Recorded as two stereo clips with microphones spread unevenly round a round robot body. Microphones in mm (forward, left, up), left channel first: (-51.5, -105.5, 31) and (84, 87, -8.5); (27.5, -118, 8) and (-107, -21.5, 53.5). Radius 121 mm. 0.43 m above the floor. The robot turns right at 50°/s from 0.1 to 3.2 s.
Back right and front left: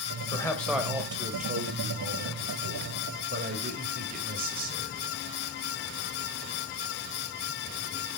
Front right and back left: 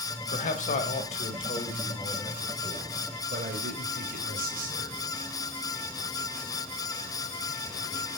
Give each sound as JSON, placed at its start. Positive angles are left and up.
{"t": 0.3, "sound": "a man speaking", "azimuth_deg": -50, "distance_m": 2.5}